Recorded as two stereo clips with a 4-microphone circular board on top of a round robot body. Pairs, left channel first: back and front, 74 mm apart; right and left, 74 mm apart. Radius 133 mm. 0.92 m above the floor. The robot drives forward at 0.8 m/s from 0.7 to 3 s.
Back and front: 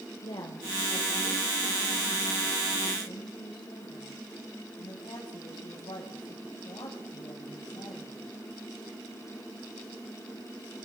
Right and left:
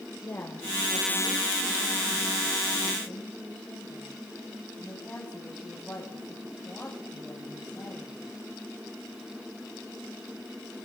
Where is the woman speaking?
150° right, 3.5 m; by 8.2 s 160° right, 5.5 m.